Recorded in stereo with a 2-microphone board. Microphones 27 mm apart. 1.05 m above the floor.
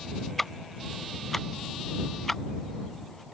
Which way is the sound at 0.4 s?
15° left (ahead or behind).